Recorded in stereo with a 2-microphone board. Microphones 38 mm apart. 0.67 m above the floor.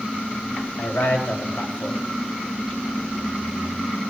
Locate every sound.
0.8 s a man speaking: 70° left (ahead or behind), 3.5 m